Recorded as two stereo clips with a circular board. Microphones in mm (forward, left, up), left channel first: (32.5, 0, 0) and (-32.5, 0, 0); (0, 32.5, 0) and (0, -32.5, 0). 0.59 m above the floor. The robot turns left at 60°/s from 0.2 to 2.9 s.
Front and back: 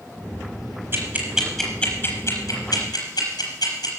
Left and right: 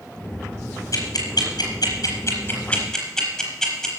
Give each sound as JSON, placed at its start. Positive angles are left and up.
{"t": 0.9, "sound": "ticking", "azimuth_deg": 125, "distance_m": 4.5}